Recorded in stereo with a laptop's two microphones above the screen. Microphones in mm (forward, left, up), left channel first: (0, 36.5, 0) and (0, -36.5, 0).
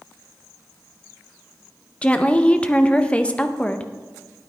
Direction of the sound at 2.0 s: 15° left (ahead or behind).